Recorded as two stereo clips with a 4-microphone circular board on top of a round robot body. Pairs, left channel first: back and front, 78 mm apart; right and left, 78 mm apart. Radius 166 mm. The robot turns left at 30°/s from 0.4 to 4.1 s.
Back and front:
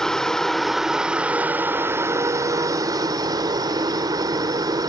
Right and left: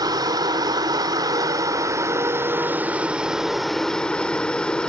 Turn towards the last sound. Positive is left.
turn(degrees=-15)